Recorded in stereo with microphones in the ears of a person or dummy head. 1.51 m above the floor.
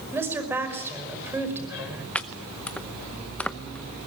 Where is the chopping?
5° left (ahead or behind), 0.8 m.